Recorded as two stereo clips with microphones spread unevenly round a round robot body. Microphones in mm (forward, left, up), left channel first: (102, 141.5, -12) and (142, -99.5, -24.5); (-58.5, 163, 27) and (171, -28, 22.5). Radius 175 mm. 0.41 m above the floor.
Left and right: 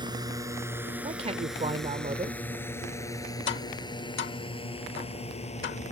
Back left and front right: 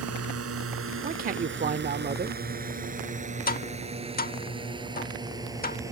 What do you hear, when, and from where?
0.0 s a drone: 10° right; by 5.9 s 40° left
1.0 s a man speaking: 60° right
3.5 s tapping: 95° left